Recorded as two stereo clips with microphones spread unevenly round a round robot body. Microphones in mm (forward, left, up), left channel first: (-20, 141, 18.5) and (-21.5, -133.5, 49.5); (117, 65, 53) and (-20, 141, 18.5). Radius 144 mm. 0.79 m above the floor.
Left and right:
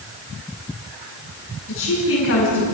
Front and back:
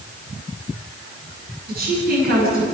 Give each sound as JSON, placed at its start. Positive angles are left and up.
{"t": 1.7, "sound": "a woman speaking", "azimuth_deg": 140, "distance_m": 8.5}